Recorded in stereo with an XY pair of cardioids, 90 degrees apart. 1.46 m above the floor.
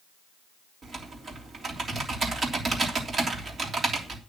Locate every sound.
0.8 s typing on a keyboard: 50° right, 3 m